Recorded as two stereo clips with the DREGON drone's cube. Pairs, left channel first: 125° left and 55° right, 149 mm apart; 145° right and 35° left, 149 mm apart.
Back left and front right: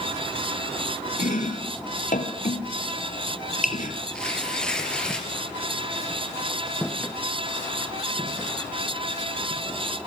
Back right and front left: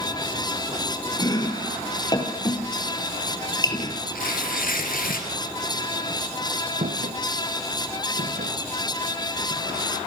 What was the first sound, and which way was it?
Chopping, 150° left.